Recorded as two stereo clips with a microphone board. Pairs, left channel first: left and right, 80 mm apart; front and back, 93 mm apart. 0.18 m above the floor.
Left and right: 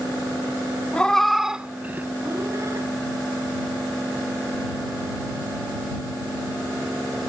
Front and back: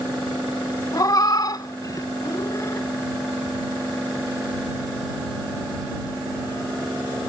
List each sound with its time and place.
0.9 s a cat meowing: 20° left; by 2.9 s 50° right